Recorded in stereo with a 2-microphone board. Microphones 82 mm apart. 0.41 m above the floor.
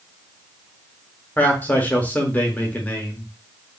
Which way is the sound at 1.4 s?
20° left (ahead or behind).